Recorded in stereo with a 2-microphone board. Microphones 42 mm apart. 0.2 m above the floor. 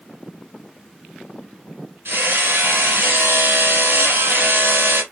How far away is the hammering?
About 2.5 m.